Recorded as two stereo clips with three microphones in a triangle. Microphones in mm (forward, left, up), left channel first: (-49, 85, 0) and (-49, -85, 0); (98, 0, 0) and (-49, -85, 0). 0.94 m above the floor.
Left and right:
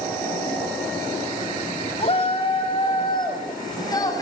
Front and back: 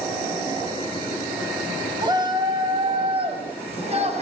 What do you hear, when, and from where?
2.0 s a shout: 145° left, 5.5 m; by 4.2 s 160° left, 6 m